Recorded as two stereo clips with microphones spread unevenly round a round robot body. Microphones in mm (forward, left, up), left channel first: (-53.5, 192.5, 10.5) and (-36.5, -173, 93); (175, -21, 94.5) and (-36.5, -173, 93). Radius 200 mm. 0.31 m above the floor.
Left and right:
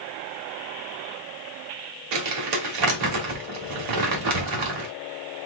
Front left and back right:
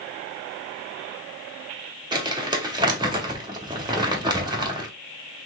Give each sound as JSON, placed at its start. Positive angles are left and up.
{"t": 2.1, "sound": "crumpling", "azimuth_deg": -75, "distance_m": 2.0}